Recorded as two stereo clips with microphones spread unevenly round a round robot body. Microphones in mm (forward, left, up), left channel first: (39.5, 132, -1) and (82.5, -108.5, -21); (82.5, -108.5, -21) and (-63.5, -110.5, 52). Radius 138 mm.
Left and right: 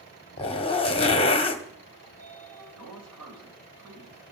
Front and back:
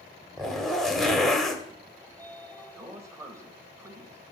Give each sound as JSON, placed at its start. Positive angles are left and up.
{"t": 0.4, "sound": "a zipper", "azimuth_deg": 40, "distance_m": 1.2}
{"t": 2.0, "sound": "a sliding door", "azimuth_deg": -100, "distance_m": 3.0}